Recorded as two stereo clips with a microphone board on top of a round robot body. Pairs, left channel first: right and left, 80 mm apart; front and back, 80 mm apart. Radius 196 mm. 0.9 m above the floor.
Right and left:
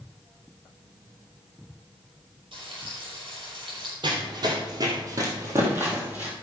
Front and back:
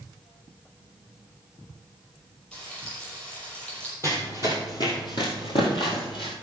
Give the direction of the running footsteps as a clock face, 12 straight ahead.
10 o'clock.